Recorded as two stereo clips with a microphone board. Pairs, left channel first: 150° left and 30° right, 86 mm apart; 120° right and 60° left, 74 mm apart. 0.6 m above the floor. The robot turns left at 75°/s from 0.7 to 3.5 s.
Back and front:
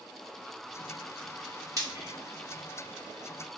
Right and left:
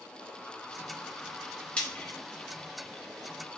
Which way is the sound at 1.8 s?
50° right.